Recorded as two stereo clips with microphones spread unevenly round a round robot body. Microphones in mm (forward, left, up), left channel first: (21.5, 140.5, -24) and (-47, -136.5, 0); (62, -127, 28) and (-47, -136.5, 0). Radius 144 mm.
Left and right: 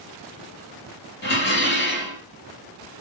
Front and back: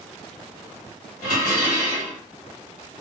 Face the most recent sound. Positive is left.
turn(degrees=25)